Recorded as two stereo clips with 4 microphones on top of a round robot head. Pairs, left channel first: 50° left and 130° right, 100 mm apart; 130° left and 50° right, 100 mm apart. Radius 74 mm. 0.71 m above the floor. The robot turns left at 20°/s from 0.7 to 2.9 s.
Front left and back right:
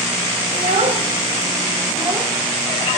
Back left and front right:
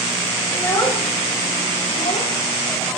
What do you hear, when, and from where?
0.5 s a child speaking: 160° right, 2.5 m; by 2.3 s 170° left, 2.5 m